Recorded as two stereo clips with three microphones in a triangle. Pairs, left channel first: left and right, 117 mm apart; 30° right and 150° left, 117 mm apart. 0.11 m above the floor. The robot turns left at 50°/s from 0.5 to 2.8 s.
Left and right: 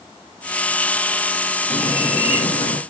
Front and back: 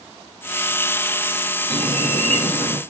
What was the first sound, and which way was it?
A bird, 145° left.